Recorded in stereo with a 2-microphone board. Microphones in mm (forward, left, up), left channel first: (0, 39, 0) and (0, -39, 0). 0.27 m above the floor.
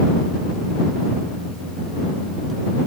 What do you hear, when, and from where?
Only background noise.